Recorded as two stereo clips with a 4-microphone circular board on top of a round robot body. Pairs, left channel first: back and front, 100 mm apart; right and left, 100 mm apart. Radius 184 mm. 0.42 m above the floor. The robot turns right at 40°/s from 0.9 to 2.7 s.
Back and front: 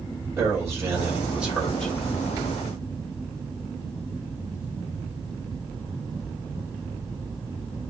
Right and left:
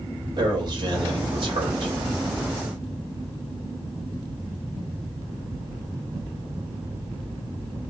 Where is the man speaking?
60° left, 2 m; by 1.9 s 100° left, 2 m.